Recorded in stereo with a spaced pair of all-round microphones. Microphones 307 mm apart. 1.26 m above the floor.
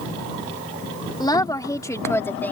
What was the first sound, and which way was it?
A woman speaking, 15° left (ahead or behind).